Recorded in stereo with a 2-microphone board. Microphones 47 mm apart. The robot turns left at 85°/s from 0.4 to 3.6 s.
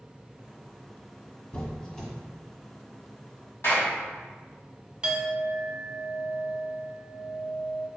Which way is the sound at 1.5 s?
25° left (ahead or behind).